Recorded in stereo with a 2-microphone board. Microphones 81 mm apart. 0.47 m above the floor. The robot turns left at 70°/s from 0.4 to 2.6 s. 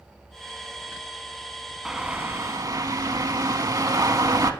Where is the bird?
5° right, 0.5 m; by 4.5 s 60° right, 0.5 m.